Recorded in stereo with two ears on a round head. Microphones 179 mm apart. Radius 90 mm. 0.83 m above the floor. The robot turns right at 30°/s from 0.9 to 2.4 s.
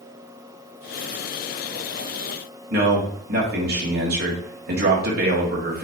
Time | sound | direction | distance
2.7 | a man speaking | 50° right (ahead or behind) | 2 m